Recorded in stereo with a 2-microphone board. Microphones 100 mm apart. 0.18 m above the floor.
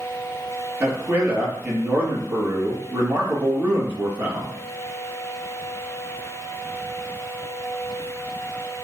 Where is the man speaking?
20° right (ahead or behind), 3.5 m.